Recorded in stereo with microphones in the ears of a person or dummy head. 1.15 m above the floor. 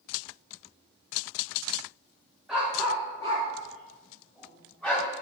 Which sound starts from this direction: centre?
A dog barking, at 2.5 s.